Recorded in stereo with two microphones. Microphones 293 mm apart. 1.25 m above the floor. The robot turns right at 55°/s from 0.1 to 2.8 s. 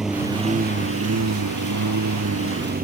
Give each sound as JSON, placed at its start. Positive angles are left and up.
{"t": 0.0, "sound": "a lawn mower", "azimuth_deg": 180}